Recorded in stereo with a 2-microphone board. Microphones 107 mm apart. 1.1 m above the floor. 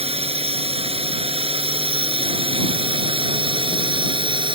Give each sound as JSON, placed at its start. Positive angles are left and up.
{"t": 0.0, "sound": "a drone", "side_deg": -65}